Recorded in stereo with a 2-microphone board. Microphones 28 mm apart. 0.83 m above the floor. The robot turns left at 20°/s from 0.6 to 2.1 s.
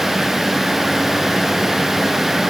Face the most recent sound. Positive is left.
No sound to turn to.